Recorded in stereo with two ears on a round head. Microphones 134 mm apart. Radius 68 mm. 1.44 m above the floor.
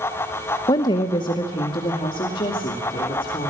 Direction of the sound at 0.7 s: 25° left (ahead or behind).